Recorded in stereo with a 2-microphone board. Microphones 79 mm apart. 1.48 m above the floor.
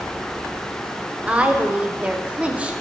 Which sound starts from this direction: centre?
A woman speaking, at 1.3 s.